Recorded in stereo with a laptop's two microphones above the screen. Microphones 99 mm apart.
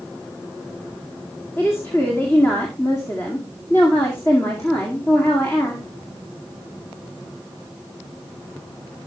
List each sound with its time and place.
1.6 s a woman speaking: 30° left (ahead or behind), 2.0 m